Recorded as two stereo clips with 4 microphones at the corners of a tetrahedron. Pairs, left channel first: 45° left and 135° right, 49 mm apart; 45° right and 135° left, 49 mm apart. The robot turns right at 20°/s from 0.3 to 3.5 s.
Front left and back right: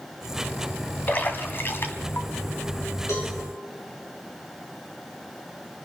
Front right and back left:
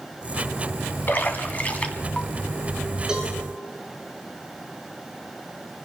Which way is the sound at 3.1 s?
60° left.